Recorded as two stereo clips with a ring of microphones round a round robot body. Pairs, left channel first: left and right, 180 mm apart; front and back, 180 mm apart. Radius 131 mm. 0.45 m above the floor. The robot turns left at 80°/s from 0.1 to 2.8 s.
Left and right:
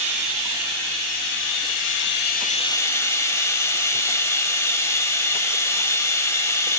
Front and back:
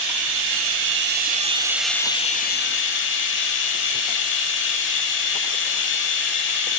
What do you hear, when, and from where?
0.0 s running water: 130° right, 0.8 m; by 6.8 s 15° left, 0.8 m